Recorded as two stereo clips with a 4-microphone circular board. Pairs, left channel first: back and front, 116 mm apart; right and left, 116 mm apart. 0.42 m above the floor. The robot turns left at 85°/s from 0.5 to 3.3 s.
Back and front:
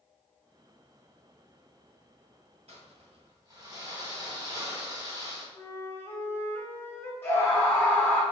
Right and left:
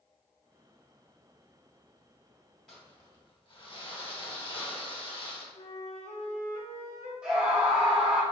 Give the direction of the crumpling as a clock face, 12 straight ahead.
12 o'clock.